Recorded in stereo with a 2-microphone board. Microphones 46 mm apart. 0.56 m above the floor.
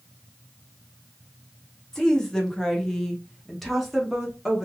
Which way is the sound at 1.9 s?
15° left (ahead or behind).